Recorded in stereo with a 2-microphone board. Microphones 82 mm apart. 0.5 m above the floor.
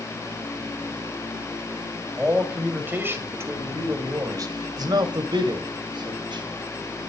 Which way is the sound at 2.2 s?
15° right (ahead or behind).